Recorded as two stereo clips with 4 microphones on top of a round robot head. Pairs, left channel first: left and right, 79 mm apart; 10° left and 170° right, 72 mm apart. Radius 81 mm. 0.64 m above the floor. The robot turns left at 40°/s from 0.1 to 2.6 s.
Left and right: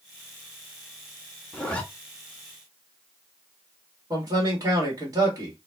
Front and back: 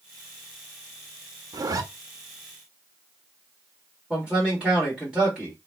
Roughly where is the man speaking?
Right.